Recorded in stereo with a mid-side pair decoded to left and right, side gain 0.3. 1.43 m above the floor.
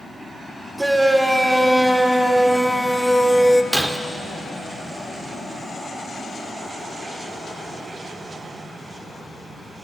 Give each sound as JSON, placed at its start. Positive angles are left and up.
{"t": 0.8, "sound": "a shout", "azimuth_deg": -20, "distance_m": 5.5}
{"t": 3.7, "sound": "breaking glass", "azimuth_deg": -15, "distance_m": 3.0}